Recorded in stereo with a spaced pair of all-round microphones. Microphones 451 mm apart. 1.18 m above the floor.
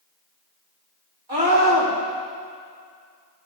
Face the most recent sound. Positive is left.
turn(degrees=-80)